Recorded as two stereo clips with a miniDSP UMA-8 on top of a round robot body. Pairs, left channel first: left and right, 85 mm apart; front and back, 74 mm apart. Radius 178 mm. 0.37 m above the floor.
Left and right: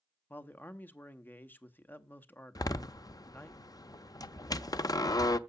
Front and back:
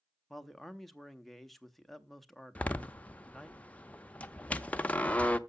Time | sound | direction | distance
0.3 | a man speaking | 85° left | 1.2 m
2.5 | a door slam | 65° left | 0.8 m